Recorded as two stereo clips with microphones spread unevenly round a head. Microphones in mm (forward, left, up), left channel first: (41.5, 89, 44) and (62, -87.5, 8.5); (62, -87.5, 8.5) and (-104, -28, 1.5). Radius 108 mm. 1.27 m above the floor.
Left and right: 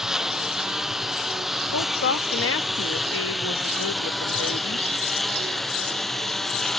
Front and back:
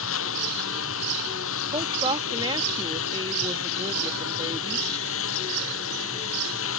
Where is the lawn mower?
5° left; by 6.8 s 10° left.